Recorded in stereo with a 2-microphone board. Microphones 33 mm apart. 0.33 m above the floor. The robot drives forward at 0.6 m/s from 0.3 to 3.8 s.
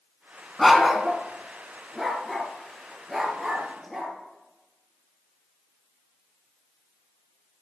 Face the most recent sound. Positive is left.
turn(degrees=0)  # may be behind; listen again after turning